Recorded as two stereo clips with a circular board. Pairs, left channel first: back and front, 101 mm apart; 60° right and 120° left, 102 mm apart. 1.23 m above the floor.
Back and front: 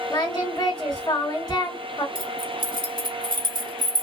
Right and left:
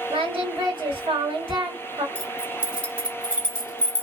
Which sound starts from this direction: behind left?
Singing, at 0.1 s.